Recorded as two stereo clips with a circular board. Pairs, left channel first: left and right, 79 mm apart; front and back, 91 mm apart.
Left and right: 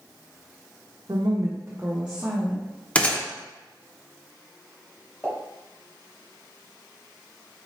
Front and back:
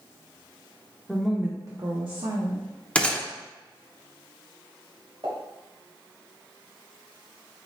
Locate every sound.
1.1 s a woman speaking: 80° right, 0.8 m; by 2.6 s 175° left, 1.3 m
3.0 s a gunshot: 55° left, 0.7 m
5.2 s a pop: 160° left, 2 m